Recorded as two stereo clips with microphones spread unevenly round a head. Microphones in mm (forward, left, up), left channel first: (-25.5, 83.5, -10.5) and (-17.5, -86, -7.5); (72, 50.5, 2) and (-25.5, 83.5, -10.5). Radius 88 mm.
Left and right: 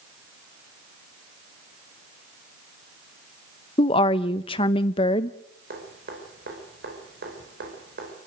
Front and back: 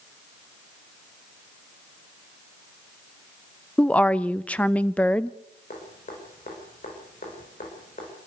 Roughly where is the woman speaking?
Ahead left.